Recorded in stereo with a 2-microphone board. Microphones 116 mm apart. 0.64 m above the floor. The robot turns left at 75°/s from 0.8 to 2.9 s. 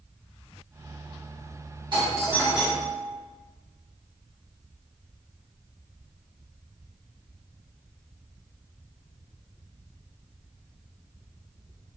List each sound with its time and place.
1.9 s a doorbell: 125° right, 1.6 m; by 3.0 s 160° left, 1.6 m